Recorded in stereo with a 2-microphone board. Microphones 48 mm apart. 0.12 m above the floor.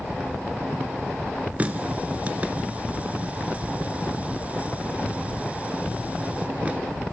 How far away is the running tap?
About 1.1 m.